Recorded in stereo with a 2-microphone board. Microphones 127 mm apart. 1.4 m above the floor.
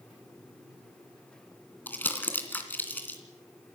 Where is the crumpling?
15° left (ahead or behind), 2.5 m.